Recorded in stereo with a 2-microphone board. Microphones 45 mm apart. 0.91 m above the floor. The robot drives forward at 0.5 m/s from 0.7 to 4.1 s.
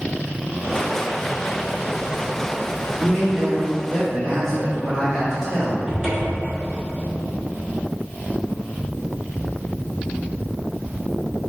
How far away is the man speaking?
About 1.5 m.